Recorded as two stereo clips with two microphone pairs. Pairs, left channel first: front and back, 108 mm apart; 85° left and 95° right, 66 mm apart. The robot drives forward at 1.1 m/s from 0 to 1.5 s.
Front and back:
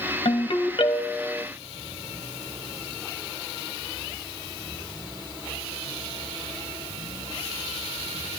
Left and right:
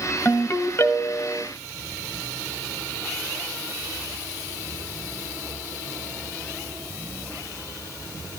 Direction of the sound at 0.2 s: 30° left.